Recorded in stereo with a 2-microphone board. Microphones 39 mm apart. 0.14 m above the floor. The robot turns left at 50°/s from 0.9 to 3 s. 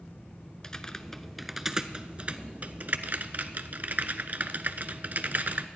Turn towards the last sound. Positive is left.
turn(degrees=-55)  # may be behind; listen again after turning